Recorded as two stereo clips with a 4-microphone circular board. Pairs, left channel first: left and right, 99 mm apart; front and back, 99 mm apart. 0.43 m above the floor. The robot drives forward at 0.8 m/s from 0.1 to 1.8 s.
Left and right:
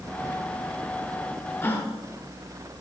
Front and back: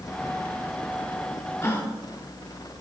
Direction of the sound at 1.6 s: 40° left.